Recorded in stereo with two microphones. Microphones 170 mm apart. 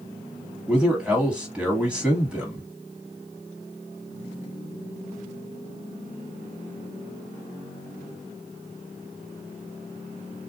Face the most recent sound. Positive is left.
turn(degrees=-5)  # may be behind; listen again after turning